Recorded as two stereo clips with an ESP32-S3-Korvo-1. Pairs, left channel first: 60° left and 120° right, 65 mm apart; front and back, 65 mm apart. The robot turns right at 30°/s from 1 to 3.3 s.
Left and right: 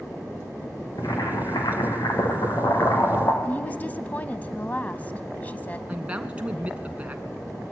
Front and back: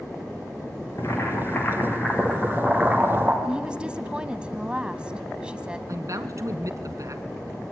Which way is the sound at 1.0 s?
45° left.